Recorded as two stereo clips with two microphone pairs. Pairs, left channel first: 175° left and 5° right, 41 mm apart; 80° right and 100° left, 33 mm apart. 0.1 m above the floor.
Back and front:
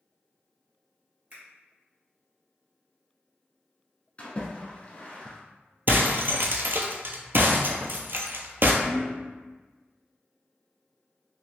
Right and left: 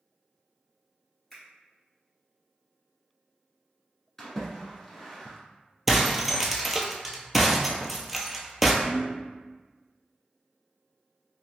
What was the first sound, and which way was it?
A finger snap, 10° right.